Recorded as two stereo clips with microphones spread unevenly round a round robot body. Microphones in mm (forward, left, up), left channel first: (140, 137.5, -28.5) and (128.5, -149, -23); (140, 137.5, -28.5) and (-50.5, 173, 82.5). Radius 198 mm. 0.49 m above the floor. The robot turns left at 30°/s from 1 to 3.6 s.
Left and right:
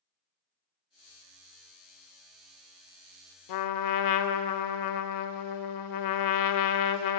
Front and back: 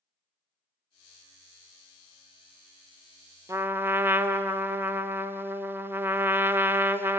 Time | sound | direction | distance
3.5 | a trumpet | 90° left | 0.5 m